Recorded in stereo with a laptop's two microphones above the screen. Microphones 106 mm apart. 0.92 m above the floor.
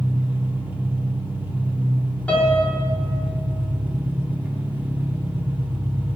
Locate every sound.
0.0 s an engine running: 15° right (ahead or behind), 1.2 m
2.3 s a piano: 15° left (ahead or behind), 1.5 m